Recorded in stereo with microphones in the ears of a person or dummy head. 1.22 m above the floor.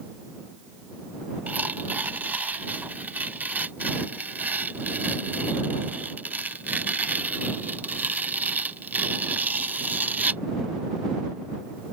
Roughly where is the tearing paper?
Centre.